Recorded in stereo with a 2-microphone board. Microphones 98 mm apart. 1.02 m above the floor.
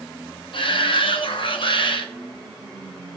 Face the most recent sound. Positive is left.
turn(degrees=60)  # may be behind; listen again after turning